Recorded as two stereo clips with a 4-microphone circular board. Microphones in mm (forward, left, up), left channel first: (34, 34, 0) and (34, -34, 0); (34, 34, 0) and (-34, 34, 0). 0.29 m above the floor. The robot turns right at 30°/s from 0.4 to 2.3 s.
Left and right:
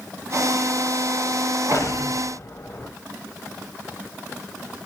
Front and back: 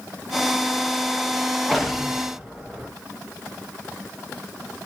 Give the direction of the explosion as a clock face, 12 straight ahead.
9 o'clock.